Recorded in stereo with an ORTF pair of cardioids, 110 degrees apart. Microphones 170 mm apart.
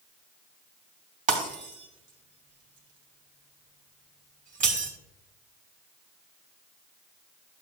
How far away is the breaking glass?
About 3 m.